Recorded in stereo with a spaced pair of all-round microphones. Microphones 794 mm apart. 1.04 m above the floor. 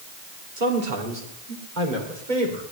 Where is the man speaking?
75° right (ahead or behind), 2.5 m; by 2.6 s 65° right (ahead or behind), 3.5 m.